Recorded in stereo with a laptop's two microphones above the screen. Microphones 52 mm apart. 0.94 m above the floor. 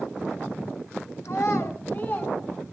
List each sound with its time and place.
1.2 s a child speaking: 65° left (ahead or behind), 2.5 m; by 2.4 s 35° left (ahead or behind), 3 m